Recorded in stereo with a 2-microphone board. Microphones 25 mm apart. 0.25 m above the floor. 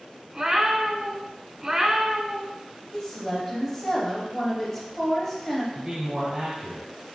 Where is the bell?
I don't hear a bell.